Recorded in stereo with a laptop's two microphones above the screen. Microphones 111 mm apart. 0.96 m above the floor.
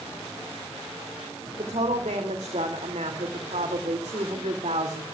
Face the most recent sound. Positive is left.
turn(degrees=-80)